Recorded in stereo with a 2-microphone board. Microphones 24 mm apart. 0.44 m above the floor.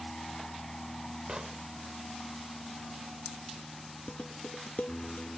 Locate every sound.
0.0 s an aircraft: 35° left (ahead or behind); by 5.4 s 40° left (ahead or behind)
1.3 s an explosion: 35° right (ahead or behind)
4.1 s dishes clattering: 85° left